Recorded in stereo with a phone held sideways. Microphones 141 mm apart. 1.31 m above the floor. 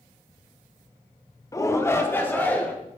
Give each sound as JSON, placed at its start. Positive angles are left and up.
{"t": 1.5, "sound": "a shout", "side_deg": 20, "distance_m": 0.7}